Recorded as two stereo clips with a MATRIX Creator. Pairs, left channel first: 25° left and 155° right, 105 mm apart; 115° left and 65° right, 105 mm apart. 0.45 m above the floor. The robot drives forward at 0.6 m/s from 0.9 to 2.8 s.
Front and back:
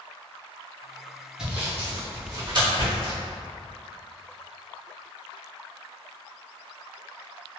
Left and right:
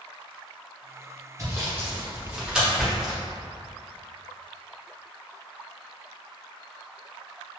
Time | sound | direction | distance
1.4 | sawing | 85° right | 0.9 m